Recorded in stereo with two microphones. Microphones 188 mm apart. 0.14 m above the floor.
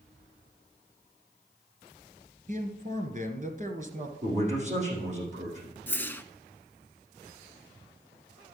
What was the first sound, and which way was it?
A man speaking, 45° right (ahead or behind).